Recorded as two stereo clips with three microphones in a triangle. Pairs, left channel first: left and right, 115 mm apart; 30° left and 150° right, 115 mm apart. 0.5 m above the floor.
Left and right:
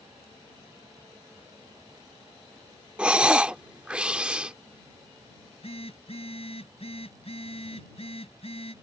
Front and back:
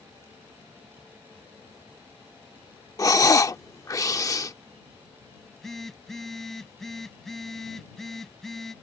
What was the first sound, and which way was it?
Breathing, 15° right.